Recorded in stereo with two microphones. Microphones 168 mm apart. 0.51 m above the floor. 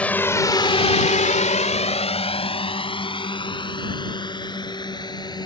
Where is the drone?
10° left (ahead or behind); by 5.5 s 25° left (ahead or behind).